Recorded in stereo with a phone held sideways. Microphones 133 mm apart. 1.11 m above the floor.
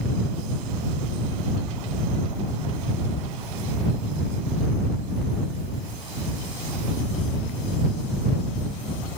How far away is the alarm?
No alarm in this recording.